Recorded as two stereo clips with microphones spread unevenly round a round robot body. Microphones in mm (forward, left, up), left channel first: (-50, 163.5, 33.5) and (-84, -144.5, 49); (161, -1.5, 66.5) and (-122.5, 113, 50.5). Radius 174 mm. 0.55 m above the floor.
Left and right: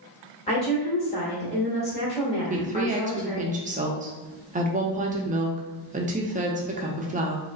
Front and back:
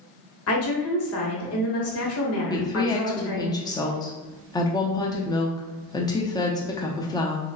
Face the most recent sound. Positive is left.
turn(degrees=-85)